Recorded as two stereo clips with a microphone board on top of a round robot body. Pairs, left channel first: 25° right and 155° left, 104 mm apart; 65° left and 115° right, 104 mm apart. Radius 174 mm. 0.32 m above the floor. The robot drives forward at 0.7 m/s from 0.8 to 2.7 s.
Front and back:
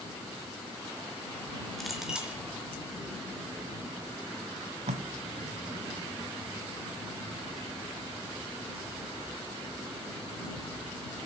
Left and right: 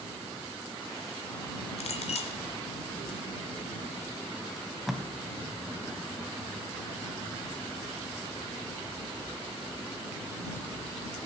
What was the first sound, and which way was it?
A clink, 65° left.